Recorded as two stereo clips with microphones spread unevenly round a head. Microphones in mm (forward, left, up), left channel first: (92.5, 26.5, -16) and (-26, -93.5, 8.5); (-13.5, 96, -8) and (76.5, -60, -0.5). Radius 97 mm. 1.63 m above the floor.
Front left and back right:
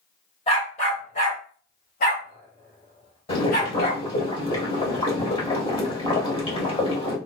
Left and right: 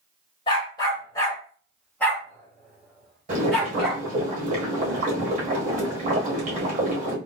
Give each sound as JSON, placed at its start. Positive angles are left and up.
{"t": 0.5, "sound": "a dog barking", "azimuth_deg": 85, "distance_m": 1.5}
{"t": 3.3, "sound": "boiling", "azimuth_deg": -15, "distance_m": 1.8}